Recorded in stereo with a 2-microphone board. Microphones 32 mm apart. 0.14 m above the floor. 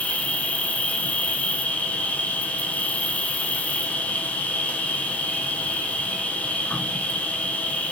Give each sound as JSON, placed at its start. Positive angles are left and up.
{"t": 0.0, "sound": "an insect", "side_deg": 45, "distance_m": 1.9}